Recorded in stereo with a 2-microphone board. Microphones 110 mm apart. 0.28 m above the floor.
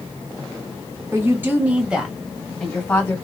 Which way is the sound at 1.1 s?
25° right (ahead or behind).